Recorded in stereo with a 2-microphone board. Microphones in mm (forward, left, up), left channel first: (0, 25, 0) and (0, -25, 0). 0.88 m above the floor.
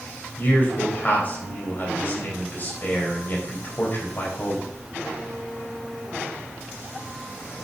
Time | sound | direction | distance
0.4 | a man speaking | 35° left (ahead or behind) | 4.5 m